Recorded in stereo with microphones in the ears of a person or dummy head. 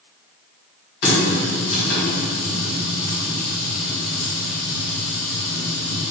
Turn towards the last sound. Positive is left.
turn(degrees=55)  # may be behind; listen again after turning